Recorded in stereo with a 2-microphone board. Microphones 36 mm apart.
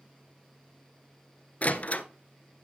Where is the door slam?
45° left (ahead or behind), 1.0 m.